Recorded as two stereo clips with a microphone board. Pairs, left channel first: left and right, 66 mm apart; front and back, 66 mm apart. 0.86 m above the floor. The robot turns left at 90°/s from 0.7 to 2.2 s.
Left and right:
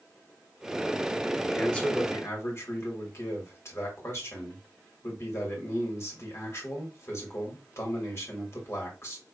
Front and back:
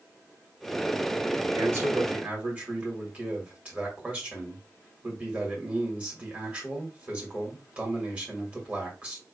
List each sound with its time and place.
1.5 s a man speaking: straight behind, 1.5 m; by 9.2 s 115° left, 1.5 m